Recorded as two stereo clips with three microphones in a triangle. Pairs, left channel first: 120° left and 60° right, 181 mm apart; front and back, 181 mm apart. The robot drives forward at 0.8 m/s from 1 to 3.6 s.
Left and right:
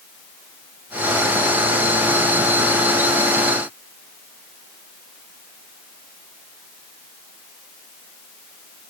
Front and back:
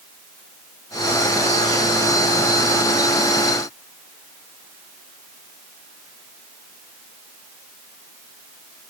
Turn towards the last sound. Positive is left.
No sound to turn to.